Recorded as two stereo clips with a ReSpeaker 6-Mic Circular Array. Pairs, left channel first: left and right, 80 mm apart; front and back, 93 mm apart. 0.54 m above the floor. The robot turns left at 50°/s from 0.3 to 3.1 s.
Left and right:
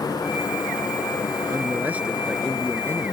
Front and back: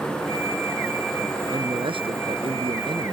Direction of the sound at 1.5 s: 140° right.